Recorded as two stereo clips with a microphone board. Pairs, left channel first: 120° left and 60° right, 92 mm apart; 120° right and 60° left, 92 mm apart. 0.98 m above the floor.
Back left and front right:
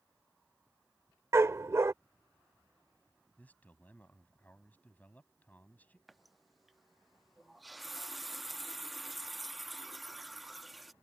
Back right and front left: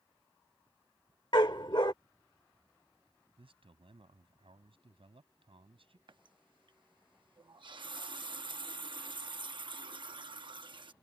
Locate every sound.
1.3 s a dog barking: 115° right
3.4 s a man speaking: 45° left
6.1 s a running tap: 30° left